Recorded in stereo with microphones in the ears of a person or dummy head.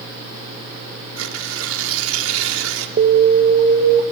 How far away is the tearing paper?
About 2 m.